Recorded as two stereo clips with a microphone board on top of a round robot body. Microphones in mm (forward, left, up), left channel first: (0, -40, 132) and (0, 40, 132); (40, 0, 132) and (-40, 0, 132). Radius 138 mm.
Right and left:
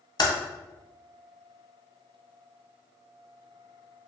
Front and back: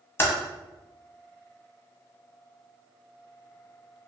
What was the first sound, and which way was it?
Typing on a keyboard, 65° right.